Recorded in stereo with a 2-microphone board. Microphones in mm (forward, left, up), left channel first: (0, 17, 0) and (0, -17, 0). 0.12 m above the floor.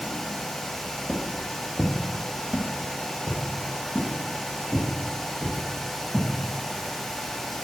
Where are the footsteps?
15° left (ahead or behind), 2 m; by 6.2 s 70° right (ahead or behind), 5.5 m.